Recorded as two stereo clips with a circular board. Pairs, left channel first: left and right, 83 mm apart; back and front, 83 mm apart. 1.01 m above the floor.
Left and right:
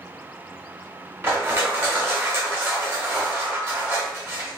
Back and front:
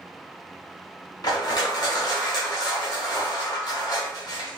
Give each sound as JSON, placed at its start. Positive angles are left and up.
{"t": 1.2, "sound": "crushing", "azimuth_deg": -150, "distance_m": 1.2}